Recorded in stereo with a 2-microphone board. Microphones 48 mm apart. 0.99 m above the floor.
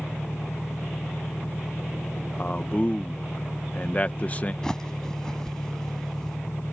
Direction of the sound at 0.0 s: 80° left.